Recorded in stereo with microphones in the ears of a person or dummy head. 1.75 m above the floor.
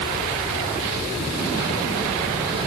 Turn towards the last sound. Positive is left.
No sound to turn to.